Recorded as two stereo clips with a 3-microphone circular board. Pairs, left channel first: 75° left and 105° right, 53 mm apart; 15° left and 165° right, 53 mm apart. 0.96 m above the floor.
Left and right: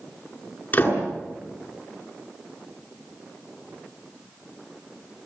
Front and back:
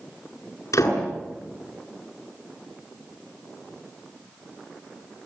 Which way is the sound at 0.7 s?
15° left.